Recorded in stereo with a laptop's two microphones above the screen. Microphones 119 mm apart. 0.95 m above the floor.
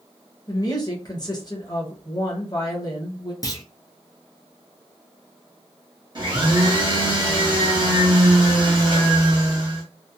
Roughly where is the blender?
Right.